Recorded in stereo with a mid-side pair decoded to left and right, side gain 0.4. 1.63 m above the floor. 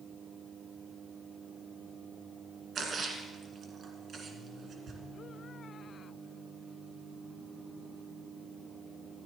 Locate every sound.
2.8 s a splash: 60° right, 1.9 m